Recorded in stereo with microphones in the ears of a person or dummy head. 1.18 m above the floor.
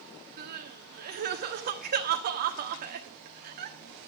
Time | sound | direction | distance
0.4 | crying | 45° right (ahead or behind) | 1.3 m